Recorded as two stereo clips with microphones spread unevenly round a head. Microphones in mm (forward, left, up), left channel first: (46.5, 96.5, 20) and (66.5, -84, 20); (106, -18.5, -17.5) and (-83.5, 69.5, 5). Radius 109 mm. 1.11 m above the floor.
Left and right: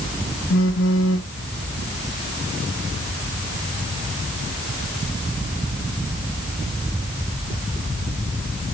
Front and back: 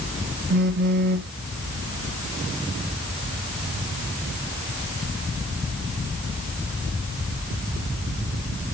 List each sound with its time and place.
0.5 s a phone buzzing: 110° left, 1.5 m